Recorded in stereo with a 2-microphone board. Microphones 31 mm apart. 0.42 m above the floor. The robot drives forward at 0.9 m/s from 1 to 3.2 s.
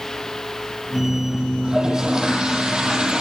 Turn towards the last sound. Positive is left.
turn(degrees=-25)  # may be behind; listen again after turning